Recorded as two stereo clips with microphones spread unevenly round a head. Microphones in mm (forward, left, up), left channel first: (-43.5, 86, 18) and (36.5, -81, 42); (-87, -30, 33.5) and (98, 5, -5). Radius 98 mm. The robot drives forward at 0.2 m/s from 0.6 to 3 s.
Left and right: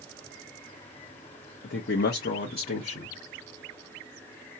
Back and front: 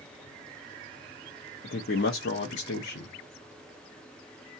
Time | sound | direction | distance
1.6 | a man speaking | 150° left | 0.5 m